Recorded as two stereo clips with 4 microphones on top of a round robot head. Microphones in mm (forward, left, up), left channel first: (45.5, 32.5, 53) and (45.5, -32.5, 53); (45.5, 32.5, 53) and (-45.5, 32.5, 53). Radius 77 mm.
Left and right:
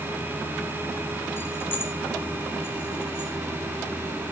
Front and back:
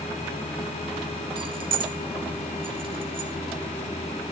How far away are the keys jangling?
About 0.9 m.